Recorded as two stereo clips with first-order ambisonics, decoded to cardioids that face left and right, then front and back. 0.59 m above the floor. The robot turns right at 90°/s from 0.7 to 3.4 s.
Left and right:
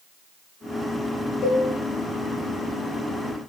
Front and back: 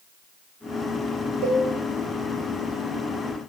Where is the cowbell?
150° left, 0.8 m; by 1.6 s 170° left, 0.8 m.